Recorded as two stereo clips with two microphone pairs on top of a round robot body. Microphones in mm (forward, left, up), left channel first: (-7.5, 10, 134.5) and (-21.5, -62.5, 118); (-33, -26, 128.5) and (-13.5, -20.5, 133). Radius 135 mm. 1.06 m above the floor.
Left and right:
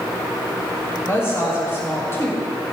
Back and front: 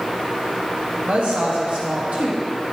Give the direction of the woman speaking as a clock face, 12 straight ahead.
11 o'clock.